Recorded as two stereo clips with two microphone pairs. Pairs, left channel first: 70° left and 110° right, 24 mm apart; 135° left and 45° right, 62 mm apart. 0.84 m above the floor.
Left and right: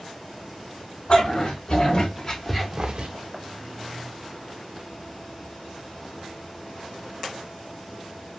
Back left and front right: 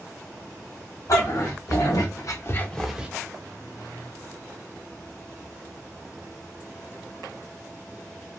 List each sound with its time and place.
1.1 s a dog barking: 115° left, 1.9 m; by 3.1 s 115° right, 0.6 m